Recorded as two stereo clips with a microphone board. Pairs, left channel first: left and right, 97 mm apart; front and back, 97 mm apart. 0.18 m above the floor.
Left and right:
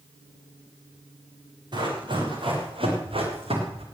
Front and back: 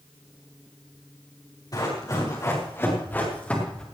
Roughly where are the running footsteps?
Ahead right.